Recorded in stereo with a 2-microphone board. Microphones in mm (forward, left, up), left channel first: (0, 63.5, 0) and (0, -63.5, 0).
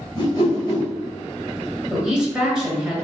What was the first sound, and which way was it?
A whoosh, 35° left (ahead or behind).